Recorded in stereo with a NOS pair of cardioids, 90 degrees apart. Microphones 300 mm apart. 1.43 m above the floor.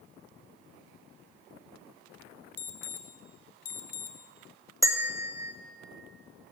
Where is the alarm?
55° left, 1.1 m.